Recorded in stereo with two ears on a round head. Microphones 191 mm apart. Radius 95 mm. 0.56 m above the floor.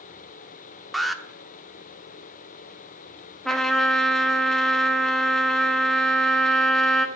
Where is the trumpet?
Centre (ahead or behind), 1.3 m.